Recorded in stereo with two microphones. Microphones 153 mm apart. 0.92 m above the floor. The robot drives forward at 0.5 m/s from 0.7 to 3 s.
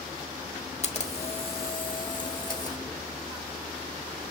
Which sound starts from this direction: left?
A camera shutter, at 0.8 s.